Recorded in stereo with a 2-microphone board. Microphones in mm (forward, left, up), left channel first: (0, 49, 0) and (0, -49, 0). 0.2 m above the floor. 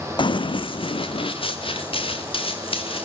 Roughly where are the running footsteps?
Left.